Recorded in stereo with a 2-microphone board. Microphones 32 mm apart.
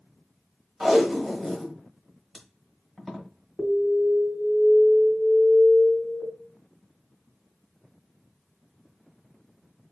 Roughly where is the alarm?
Left.